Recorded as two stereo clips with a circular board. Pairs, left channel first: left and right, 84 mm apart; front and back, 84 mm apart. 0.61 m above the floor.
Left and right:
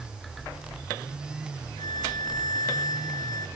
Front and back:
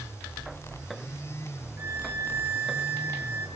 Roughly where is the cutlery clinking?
I don't hear cutlery clinking.